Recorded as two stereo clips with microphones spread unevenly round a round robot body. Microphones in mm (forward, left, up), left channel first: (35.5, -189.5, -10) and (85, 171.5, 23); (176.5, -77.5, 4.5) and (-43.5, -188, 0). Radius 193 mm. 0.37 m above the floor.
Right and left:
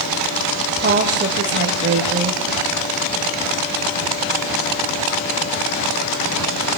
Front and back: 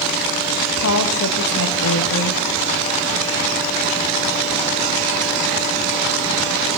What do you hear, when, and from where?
0.8 s a woman speaking: 20° left, 1.9 m